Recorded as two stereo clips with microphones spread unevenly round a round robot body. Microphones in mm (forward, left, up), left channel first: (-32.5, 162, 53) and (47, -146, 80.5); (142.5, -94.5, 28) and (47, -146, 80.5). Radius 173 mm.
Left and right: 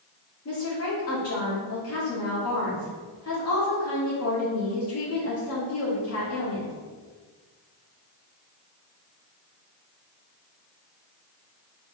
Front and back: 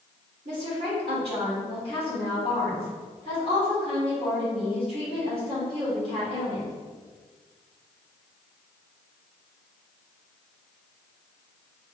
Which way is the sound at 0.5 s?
145° left.